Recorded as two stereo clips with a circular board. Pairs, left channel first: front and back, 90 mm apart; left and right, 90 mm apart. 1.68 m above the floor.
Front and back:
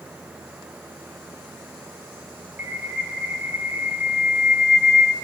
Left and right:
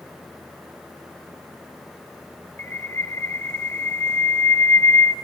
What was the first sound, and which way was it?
A bird, 120° left.